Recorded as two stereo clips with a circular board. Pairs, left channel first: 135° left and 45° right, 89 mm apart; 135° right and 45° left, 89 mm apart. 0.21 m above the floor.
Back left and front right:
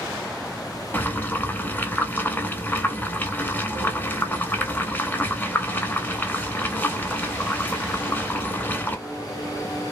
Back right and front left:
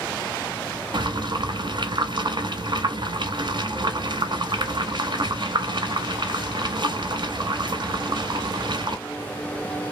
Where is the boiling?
65° left, 0.6 m.